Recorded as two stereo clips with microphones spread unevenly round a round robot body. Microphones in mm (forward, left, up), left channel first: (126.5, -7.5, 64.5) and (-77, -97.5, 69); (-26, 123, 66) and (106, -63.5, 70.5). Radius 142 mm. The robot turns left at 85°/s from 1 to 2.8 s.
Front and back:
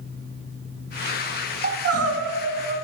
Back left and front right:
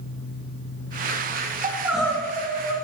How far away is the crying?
About 1.6 m.